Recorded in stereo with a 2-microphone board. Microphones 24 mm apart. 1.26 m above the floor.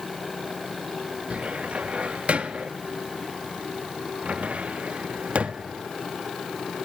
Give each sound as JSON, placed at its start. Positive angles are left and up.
{"t": 1.3, "sound": "a cupboard door", "side_deg": -60, "distance_m": 1.2}